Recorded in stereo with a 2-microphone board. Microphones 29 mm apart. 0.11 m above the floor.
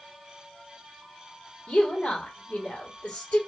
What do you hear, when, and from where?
1.7 s a woman speaking: 50° left (ahead or behind), 3.5 m